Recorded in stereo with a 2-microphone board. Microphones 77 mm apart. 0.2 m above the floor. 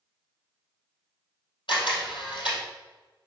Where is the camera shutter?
80° left, 3 m.